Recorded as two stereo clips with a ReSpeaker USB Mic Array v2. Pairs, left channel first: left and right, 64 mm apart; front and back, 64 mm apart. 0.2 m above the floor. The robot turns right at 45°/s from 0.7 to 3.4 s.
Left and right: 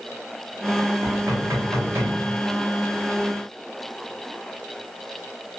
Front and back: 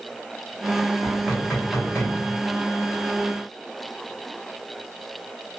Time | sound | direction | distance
1.0 | knocking | 90° right | 1.7 m